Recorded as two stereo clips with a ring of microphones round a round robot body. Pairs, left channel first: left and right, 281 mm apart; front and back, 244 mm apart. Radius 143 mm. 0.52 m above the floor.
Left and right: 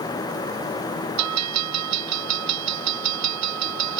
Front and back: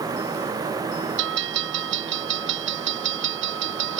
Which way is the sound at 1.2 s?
125° right.